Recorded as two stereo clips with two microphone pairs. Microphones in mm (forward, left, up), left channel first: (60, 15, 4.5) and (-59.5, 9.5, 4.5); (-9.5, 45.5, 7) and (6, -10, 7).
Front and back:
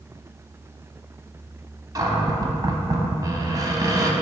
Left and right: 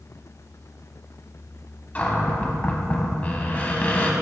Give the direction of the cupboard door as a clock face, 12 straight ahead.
7 o'clock.